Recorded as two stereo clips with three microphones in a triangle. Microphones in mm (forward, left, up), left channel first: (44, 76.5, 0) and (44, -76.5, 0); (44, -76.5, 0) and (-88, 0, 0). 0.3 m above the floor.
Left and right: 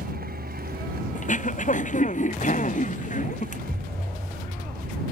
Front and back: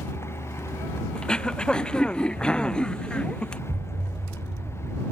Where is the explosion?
Straight behind.